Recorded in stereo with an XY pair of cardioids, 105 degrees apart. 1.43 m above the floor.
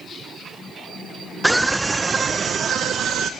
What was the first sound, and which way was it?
A scream, 10° right.